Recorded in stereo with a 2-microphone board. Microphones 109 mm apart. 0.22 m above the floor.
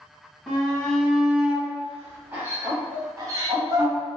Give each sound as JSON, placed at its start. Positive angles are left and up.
{"t": 0.5, "sound": "a shout", "side_deg": 10, "distance_m": 1.6}